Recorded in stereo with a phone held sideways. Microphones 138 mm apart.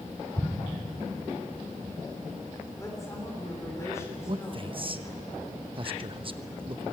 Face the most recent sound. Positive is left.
turn(degrees=-40)  # may be behind; listen again after turning